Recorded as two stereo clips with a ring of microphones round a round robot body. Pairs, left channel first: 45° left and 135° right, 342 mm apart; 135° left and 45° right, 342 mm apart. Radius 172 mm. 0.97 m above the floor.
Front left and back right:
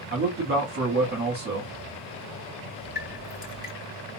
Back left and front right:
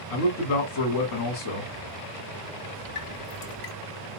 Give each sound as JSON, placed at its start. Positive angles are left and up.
{"t": 0.1, "sound": "a man speaking", "azimuth_deg": 165, "distance_m": 1.7}
{"t": 3.0, "sound": "dripping", "azimuth_deg": 105, "distance_m": 2.5}